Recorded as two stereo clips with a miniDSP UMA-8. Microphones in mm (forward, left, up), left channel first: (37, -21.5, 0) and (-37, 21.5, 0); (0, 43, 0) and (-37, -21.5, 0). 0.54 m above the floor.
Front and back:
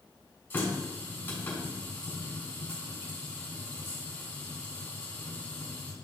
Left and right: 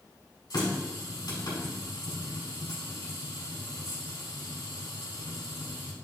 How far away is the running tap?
About 3 m.